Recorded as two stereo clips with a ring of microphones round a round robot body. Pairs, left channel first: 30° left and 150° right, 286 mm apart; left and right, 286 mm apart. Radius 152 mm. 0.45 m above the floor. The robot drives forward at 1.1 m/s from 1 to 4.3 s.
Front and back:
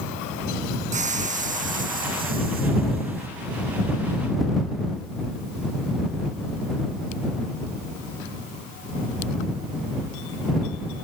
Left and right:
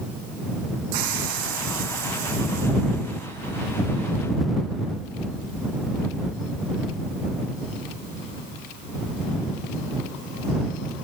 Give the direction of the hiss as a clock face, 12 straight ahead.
3 o'clock.